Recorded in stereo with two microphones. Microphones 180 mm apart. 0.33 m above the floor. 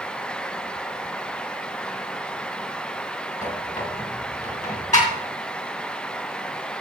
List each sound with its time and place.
3.4 s a squeak: 45° left (ahead or behind), 3 m